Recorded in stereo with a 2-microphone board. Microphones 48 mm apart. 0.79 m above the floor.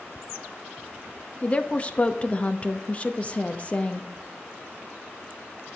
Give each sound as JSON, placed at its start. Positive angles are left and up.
{"t": 1.4, "sound": "a woman speaking", "side_deg": 25, "distance_m": 0.7}